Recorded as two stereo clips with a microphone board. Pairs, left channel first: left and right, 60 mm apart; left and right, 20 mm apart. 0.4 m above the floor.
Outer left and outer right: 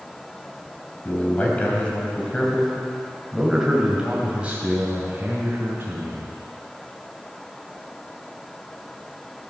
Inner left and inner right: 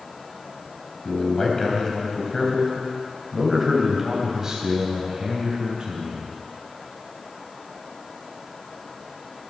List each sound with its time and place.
1.1 s a man speaking: 30° left (ahead or behind), 2.5 m; by 6.3 s 40° right (ahead or behind), 3 m